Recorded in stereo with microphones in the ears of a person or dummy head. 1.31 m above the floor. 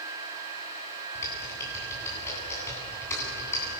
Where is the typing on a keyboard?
15° left (ahead or behind), 9 m.